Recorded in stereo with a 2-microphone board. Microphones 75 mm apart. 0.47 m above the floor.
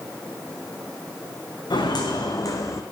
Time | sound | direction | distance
1.7 | footsteps | 70° left (ahead or behind) | 2.5 m